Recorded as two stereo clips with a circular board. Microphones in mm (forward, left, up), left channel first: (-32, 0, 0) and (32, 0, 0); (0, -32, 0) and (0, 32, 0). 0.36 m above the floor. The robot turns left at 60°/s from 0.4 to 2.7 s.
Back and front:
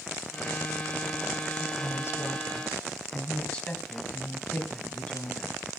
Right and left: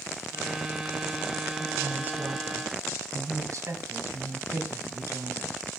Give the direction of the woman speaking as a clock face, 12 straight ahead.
6 o'clock.